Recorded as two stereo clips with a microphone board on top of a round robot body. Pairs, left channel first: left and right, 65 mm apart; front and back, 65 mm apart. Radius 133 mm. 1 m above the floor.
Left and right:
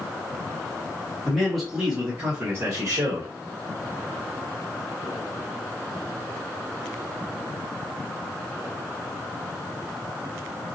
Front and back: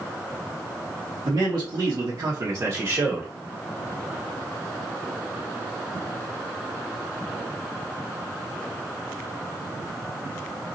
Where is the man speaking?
175° left, 1.3 m; by 3.3 s 130° right, 1.0 m.